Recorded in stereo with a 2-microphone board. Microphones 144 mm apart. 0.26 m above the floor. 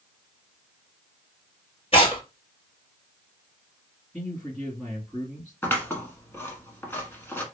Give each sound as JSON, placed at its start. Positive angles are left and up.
{"t": 1.9, "sound": "tearing paper", "side_deg": 40, "distance_m": 1.5}
{"t": 4.1, "sound": "a man speaking", "side_deg": 5, "distance_m": 1.8}
{"t": 5.6, "sound": "scissors", "side_deg": 15, "distance_m": 0.9}